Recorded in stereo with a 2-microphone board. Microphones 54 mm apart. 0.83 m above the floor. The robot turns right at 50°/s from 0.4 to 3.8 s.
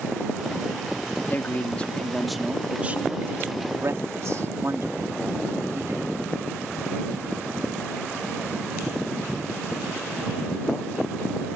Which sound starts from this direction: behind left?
A man speaking, at 1.3 s.